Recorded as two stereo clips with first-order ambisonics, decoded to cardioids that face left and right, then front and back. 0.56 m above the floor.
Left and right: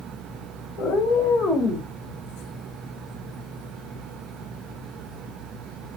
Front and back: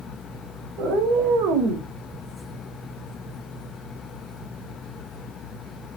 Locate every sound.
0.8 s a cat meowing: 140° left, 1.3 m; by 1.9 s 175° left, 0.9 m